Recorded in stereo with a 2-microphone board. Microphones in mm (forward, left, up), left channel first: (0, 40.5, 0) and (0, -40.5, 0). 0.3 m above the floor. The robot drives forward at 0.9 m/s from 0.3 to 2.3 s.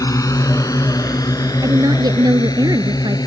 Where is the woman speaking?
55° right (ahead or behind).